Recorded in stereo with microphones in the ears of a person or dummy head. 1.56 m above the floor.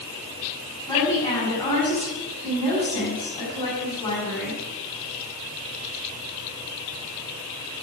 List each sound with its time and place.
0.9 s a woman speaking: 15° left (ahead or behind), 7.5 m